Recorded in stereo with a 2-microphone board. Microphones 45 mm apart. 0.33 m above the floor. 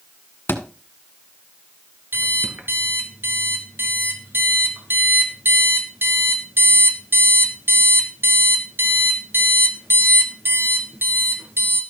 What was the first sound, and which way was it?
A thud, 60° left (ahead or behind).